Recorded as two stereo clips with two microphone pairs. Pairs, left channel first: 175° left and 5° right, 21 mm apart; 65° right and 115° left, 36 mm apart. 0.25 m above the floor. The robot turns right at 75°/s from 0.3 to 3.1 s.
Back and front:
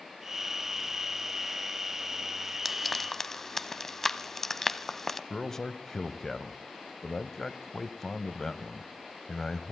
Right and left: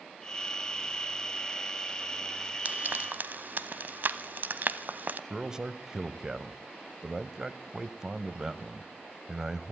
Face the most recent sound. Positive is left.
turn(degrees=165)